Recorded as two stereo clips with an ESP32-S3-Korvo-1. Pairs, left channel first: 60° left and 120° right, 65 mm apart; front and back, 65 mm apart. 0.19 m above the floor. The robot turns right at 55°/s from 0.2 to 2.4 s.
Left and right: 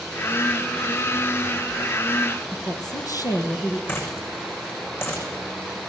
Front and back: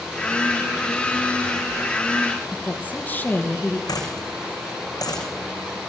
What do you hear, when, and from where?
2.5 s a woman speaking: 60° left, 4.5 m
3.9 s a dropped coin: 10° left, 7.5 m